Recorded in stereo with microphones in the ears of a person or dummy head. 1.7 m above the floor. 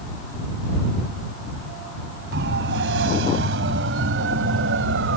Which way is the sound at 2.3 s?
75° right (ahead or behind).